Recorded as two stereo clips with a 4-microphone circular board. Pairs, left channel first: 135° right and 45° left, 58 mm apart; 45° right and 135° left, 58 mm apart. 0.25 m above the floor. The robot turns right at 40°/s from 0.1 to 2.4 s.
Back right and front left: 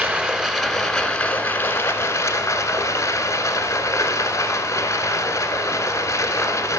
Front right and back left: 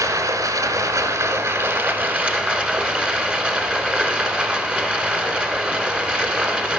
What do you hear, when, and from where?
0.0 s running water: 110° left, 1.1 m; by 6.8 s 155° right, 1.1 m